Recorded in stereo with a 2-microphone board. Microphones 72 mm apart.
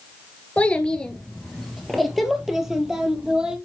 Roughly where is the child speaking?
Centre.